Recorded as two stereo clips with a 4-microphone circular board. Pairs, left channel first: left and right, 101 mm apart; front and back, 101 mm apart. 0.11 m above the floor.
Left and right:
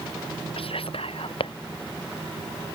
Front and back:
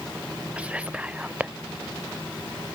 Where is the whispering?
105° left.